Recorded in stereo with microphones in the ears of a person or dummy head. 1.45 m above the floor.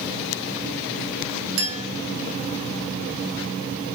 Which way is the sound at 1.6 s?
75° right (ahead or behind).